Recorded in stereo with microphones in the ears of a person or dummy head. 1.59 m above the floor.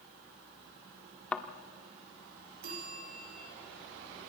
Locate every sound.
1.3 s a thud: 10° left (ahead or behind), 1.7 m
2.6 s a bell: 60° right (ahead or behind), 5.5 m